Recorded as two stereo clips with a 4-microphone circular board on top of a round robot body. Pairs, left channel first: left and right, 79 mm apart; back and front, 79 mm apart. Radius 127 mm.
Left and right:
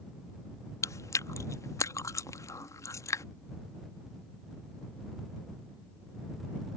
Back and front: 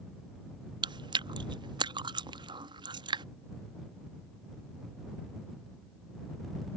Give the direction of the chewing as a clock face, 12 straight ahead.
11 o'clock.